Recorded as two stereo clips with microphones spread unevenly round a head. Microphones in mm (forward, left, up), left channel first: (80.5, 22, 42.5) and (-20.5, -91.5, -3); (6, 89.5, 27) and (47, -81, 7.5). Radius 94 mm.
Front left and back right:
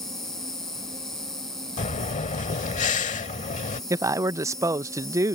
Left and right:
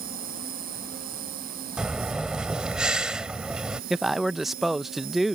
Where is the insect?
40° right.